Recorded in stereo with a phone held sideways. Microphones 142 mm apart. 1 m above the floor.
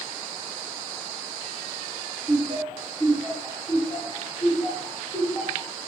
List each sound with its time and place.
2.3 s laughter: 15° right (ahead or behind), 1.7 m; by 5.7 s 40° left (ahead or behind), 0.9 m